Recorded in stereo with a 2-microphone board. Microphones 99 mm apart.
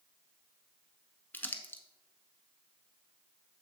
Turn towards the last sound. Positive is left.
turn(degrees=20)  # may be behind; listen again after turning